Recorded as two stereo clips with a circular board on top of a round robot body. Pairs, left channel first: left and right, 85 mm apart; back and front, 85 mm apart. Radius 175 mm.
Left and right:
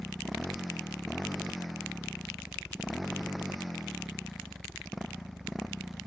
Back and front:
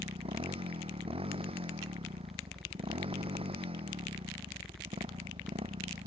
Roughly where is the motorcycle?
Ahead.